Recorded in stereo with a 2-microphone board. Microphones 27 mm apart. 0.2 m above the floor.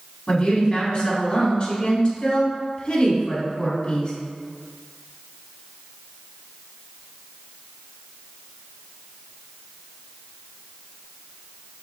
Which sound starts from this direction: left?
A woman speaking, at 0.3 s.